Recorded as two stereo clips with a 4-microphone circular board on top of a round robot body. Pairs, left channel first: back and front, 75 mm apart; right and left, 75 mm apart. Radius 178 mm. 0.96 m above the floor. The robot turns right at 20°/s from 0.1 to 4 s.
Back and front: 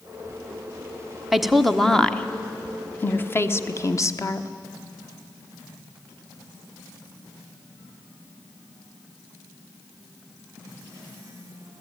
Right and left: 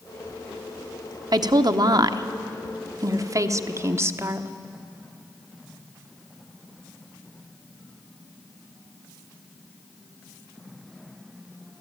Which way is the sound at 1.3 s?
85° left.